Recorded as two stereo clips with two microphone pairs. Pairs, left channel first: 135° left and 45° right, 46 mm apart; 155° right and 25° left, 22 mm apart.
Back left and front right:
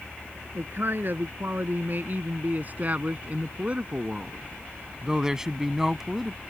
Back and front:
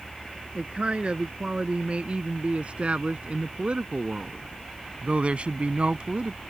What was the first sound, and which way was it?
A man speaking, 15° right.